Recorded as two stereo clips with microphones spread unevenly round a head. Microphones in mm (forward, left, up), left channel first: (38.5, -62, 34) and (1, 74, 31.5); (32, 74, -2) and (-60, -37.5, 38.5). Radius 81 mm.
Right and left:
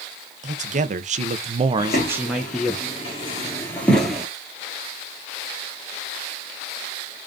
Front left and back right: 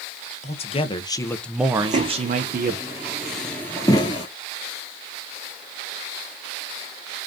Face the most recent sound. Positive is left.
turn(degrees=30)